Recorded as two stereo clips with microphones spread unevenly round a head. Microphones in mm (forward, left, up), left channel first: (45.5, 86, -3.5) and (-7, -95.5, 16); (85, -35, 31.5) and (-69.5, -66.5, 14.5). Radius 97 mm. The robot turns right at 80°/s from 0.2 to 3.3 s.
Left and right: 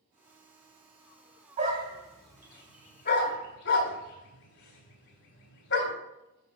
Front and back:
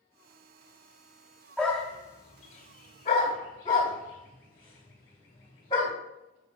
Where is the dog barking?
70° right, 1.9 m; by 5.9 s 70° left, 1.9 m.